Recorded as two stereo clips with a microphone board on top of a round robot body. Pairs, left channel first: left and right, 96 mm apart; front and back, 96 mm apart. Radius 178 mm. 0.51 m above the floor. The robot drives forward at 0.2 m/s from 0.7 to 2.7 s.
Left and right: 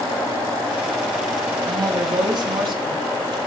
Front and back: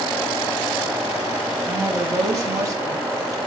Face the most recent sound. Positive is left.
turn(degrees=-130)